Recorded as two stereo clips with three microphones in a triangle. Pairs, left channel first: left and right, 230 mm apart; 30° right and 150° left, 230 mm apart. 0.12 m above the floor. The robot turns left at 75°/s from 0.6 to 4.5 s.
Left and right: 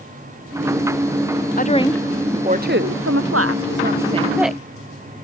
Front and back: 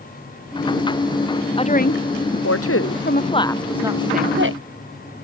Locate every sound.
1.6 s a woman speaking: 40° left; by 4.6 s straight behind